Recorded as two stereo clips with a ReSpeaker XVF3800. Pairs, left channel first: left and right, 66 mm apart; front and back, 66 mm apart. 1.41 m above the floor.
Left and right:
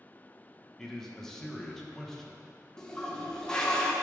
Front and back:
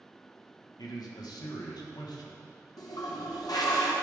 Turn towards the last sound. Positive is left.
turn(degrees=10)